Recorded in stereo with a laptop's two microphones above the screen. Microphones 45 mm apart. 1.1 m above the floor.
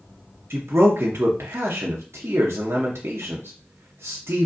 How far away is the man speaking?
About 0.8 m.